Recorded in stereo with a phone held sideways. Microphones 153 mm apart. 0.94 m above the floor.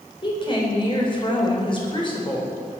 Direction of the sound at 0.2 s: 35° left (ahead or behind).